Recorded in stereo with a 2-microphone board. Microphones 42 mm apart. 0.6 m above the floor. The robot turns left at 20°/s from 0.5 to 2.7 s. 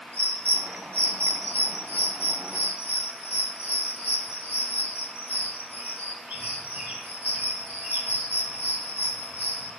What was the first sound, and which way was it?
A bird, 75° right (ahead or behind).